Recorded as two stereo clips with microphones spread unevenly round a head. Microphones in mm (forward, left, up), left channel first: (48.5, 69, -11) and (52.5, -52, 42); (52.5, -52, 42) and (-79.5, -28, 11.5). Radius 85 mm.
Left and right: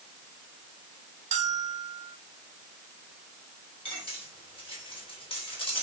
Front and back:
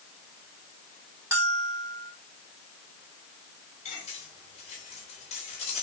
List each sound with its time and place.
1.3 s a bell: 110° right, 1.2 m
3.9 s cutlery clinking: 40° left, 3.5 m